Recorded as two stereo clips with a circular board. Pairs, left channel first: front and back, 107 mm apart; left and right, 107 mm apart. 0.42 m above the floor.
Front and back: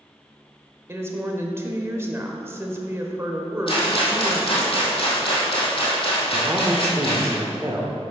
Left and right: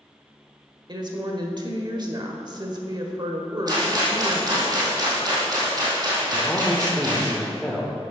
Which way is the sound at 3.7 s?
35° right.